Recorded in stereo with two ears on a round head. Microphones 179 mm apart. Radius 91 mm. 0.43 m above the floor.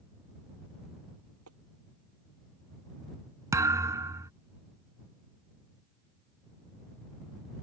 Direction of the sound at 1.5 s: 75° right (ahead or behind).